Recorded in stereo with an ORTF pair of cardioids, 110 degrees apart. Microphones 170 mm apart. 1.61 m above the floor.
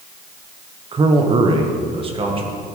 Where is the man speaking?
30° right, 1.0 m.